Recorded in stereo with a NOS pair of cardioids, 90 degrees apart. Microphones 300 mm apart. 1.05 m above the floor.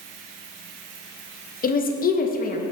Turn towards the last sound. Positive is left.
turn(degrees=30)